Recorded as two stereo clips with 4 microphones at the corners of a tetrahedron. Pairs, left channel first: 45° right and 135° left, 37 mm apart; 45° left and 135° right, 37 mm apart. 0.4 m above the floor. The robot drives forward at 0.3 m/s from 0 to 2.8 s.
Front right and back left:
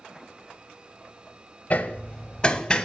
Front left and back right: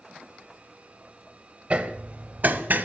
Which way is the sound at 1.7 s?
85° right.